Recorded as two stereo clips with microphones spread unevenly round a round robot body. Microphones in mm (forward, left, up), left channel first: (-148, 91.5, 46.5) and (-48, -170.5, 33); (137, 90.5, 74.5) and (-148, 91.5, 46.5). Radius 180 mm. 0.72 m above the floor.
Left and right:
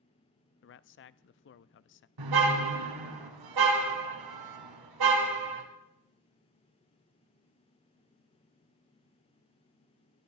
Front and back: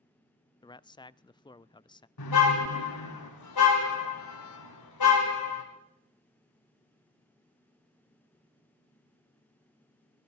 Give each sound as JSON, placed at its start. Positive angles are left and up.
{"t": 0.6, "sound": "a man speaking", "azimuth_deg": 80, "distance_m": 0.6}
{"t": 2.2, "sound": "a car horn", "azimuth_deg": -45, "distance_m": 2.5}